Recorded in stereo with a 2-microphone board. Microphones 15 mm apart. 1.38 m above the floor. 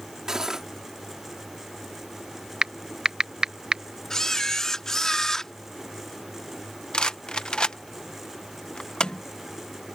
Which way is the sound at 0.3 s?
35° right (ahead or behind).